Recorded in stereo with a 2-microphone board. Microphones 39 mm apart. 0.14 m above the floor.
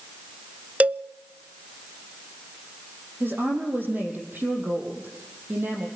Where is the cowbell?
35° right (ahead or behind), 0.5 m.